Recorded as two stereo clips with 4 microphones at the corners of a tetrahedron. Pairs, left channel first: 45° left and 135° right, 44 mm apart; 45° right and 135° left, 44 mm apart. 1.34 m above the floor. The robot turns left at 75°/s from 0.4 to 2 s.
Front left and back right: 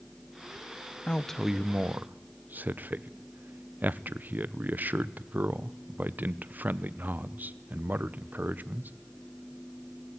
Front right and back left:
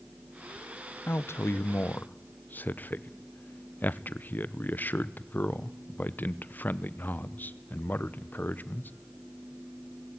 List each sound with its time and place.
1.1 s a man speaking: 20° right, 0.8 m; by 8.9 s 90° right, 0.8 m